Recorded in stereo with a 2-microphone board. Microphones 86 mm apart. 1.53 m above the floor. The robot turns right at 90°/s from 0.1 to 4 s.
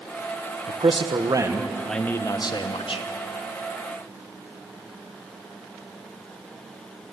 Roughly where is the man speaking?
Right.